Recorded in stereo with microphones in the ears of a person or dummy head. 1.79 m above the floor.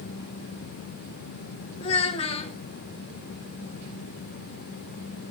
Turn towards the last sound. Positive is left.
turn(degrees=40)  # may be behind; listen again after turning